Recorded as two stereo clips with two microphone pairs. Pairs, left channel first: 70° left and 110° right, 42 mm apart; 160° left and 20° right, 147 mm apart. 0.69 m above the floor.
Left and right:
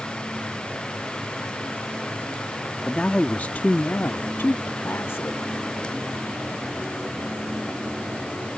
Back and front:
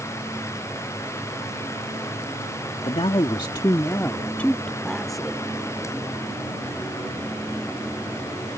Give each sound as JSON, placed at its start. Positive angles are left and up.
{"t": 2.8, "sound": "a man speaking", "azimuth_deg": 130}